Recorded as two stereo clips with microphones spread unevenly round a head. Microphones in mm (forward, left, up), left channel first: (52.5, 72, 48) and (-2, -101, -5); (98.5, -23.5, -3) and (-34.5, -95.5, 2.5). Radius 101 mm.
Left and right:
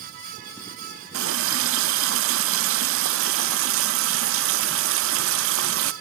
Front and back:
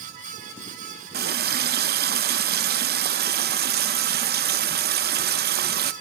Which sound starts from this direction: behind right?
A running tap, at 1.1 s.